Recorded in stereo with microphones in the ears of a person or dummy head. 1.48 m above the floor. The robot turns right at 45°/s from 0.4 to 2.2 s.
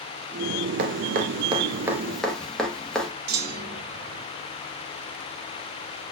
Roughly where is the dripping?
Right.